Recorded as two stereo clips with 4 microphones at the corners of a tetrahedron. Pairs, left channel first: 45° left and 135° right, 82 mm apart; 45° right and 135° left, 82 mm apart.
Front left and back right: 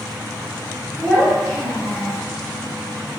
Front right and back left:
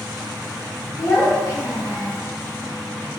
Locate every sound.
1.0 s a child speaking: 30° right, 1.3 m